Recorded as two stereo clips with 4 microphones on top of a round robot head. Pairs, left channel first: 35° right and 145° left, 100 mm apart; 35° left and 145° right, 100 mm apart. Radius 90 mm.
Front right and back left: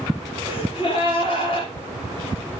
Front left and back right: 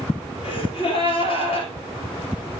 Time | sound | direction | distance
0.4 | a gasp | straight ahead | 3 m